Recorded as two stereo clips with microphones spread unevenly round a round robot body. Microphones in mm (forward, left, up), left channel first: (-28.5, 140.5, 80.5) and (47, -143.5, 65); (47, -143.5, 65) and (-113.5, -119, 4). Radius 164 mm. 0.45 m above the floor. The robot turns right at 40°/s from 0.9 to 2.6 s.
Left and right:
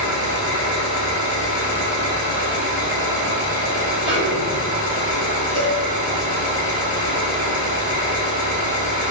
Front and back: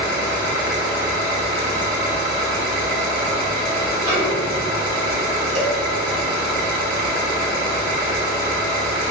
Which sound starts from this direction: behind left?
An engine running, at 0.0 s.